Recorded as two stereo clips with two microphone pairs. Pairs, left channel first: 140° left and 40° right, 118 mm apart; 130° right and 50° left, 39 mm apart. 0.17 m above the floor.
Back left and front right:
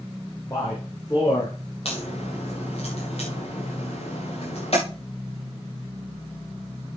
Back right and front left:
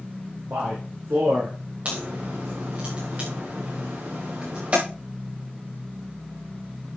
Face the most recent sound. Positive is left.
turn(degrees=105)